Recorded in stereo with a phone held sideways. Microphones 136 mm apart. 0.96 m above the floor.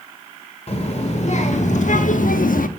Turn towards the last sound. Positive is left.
turn(degrees=80)